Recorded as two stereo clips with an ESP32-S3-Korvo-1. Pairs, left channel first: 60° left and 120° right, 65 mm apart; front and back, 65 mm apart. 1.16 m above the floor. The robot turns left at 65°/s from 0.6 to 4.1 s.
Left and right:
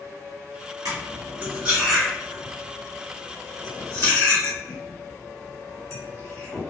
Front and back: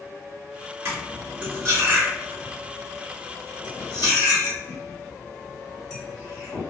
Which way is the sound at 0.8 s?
140° right.